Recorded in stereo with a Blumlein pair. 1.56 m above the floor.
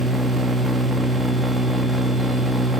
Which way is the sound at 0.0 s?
10° right.